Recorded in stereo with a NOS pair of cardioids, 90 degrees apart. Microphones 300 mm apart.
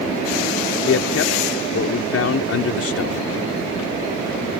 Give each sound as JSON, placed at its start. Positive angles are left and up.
{"t": 0.9, "sound": "a man speaking", "azimuth_deg": 50}